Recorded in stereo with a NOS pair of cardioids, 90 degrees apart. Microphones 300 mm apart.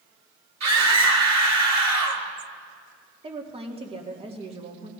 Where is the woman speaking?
20° right, 2 m.